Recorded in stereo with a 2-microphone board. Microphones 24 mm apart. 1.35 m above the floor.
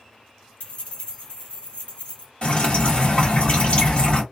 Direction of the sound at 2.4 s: 40° left (ahead or behind).